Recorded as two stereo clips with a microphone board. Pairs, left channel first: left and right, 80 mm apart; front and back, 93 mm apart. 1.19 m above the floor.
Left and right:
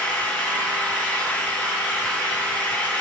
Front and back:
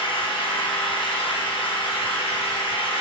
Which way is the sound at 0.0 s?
15° left.